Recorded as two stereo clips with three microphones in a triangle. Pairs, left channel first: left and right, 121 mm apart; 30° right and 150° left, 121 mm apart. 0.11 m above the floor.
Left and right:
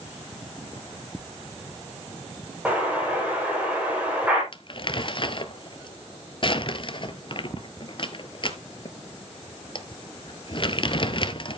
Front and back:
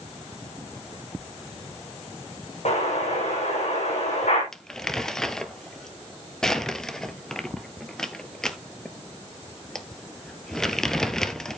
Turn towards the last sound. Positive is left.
turn(degrees=55)